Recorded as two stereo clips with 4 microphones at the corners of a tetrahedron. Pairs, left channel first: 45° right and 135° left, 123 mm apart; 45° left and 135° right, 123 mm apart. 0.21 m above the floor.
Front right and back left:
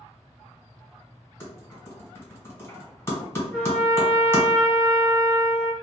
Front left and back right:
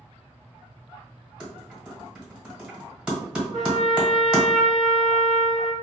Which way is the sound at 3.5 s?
50° left.